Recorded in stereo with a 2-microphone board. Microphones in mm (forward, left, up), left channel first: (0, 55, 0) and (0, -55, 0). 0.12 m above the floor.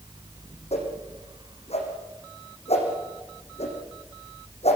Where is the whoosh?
70° left (ahead or behind), 7.5 m.